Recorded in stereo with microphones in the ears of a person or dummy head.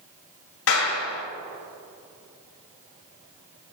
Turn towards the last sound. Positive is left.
turn(degrees=80)